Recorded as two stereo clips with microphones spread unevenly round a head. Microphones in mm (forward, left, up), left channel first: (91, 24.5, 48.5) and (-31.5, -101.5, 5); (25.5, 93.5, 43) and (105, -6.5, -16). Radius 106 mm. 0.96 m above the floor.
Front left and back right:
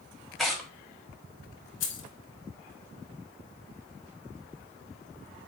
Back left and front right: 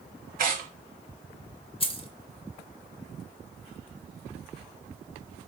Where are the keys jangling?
80° left, 0.8 m.